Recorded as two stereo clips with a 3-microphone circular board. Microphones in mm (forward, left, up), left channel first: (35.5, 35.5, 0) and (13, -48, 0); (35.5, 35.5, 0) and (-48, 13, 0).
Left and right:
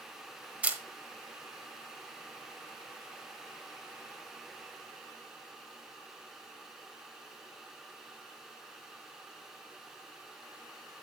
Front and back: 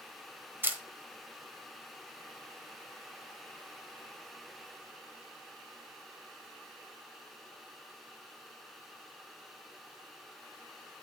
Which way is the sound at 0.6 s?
155° right.